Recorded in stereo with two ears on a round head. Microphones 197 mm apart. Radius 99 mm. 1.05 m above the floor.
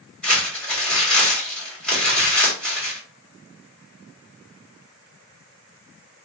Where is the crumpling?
5° left (ahead or behind), 2.5 m.